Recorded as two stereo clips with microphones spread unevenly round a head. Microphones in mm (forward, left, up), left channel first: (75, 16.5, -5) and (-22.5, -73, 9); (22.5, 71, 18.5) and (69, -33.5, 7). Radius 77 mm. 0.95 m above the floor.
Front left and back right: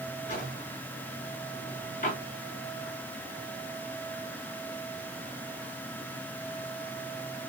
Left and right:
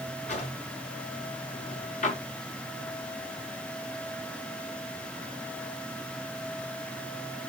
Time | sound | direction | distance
0.3 | a drawer | 95° left | 5 m